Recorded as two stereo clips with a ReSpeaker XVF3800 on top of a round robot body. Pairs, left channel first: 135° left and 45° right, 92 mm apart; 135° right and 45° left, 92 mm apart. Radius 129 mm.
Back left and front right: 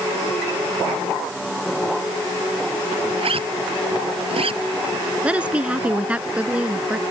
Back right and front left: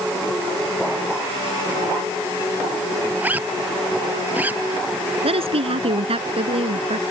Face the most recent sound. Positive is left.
turn(degrees=35)